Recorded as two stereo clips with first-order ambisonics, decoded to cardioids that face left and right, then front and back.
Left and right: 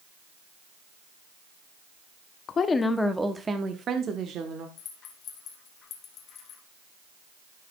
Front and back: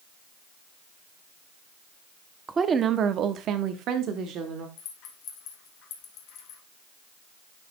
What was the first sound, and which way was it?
A woman speaking, 120° left.